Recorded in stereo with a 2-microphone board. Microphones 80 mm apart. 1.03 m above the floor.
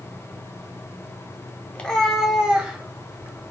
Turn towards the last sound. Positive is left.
turn(degrees=-30)  # may be behind; listen again after turning